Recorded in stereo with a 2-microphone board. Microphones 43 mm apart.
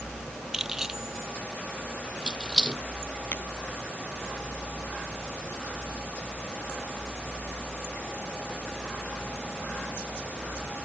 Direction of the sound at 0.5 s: 15° right (ahead or behind).